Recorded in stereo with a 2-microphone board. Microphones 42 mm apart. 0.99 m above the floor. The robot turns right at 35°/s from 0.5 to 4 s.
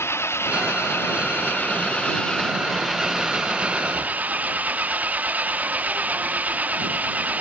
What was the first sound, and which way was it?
An engine running, 95° left.